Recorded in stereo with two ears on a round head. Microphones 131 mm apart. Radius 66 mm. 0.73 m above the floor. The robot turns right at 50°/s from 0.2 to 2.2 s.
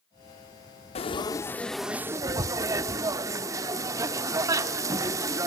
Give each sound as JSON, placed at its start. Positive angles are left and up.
{"t": 0.9, "sound": "frying", "azimuth_deg": 140, "distance_m": 0.6}